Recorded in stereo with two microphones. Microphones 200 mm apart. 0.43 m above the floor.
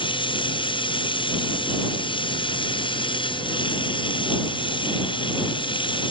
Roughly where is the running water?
Left.